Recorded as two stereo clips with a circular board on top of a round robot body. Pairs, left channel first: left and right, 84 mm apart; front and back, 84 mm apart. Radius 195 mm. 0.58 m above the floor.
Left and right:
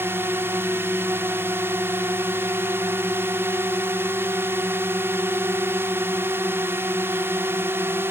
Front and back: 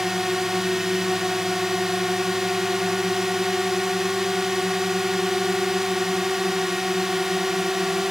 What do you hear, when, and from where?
0.0 s a drone: 100° right